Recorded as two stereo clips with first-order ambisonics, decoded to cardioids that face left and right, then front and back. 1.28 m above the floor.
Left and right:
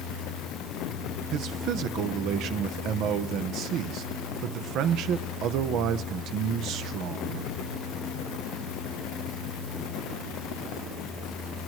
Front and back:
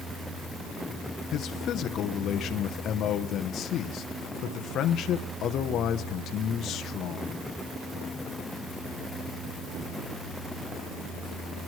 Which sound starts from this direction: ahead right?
A man speaking, at 1.3 s.